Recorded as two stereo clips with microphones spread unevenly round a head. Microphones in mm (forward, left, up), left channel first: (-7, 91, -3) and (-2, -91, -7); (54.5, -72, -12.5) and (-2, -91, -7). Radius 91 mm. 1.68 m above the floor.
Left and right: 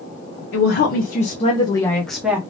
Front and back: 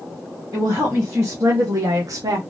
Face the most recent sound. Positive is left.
turn(degrees=-170)